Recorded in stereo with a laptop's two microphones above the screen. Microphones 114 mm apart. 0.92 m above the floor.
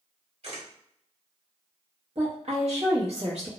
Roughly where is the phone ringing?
I don't hear a phone ringing.